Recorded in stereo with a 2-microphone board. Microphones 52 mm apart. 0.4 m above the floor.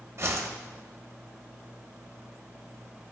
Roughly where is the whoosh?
Right.